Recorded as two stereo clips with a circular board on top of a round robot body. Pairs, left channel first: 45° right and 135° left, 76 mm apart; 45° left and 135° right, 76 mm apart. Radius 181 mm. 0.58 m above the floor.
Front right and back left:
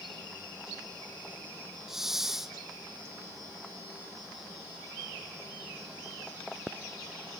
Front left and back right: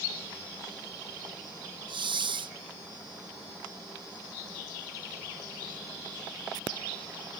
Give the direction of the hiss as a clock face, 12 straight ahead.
5 o'clock.